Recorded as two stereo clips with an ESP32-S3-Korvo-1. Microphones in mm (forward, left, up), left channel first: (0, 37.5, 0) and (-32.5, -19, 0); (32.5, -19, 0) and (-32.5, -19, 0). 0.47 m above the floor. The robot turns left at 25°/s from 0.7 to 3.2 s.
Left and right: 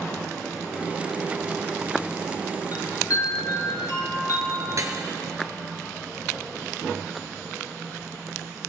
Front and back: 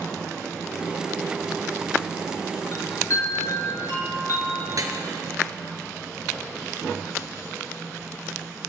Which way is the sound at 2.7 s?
45° left.